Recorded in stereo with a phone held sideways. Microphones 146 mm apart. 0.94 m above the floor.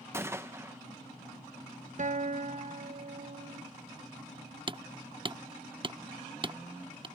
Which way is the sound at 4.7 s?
35° right (ahead or behind).